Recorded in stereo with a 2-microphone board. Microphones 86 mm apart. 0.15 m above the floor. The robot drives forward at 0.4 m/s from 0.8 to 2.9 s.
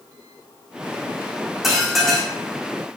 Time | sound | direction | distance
1.6 | dishes clattering | centre (ahead or behind) | 5 m